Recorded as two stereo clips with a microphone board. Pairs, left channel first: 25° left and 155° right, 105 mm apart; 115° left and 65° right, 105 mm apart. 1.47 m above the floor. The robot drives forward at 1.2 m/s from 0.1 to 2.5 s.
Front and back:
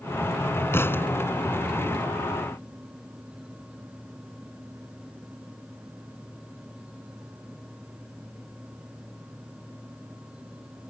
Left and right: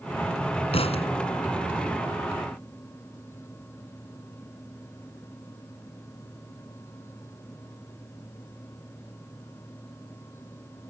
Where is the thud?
90° left.